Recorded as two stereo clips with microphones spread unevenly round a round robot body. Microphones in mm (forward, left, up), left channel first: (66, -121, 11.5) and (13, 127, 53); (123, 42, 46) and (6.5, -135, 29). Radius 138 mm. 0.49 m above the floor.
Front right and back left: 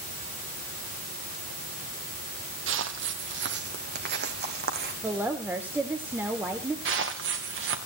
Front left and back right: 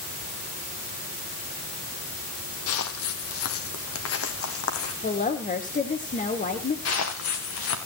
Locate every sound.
2.7 s footsteps: 70° left, 1.2 m; by 4.9 s 50° left, 2.5 m
5.0 s a woman speaking: 15° left, 1.7 m
6.8 s footsteps: 65° left, 2.5 m